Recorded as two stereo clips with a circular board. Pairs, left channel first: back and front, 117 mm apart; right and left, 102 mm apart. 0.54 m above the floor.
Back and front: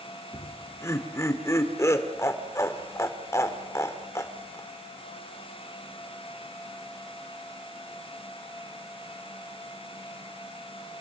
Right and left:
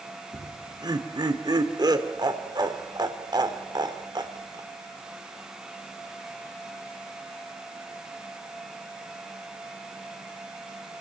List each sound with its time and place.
0.3 s laughter: 120° left, 2.0 m